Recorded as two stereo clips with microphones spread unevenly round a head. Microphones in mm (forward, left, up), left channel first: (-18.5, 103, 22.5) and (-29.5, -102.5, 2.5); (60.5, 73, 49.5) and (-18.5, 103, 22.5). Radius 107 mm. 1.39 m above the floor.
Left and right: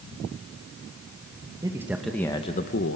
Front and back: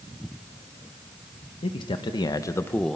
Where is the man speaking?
15° right, 1.3 m; by 3.0 s 60° left, 0.8 m.